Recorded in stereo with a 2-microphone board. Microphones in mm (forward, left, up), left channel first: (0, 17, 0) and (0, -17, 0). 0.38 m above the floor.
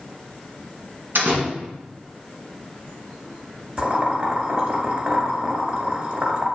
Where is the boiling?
40° right (ahead or behind), 1.7 m.